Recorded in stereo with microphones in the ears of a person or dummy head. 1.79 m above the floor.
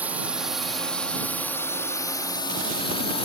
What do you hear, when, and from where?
0.0 s a drone: 10° right (ahead or behind); by 3.3 s 30° left (ahead or behind)